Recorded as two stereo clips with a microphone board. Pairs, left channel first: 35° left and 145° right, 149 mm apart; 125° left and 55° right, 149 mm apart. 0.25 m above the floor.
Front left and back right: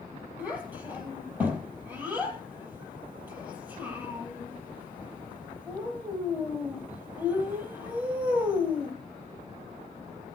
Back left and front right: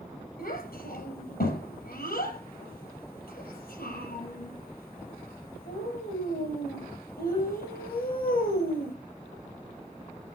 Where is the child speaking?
135° left, 5 m.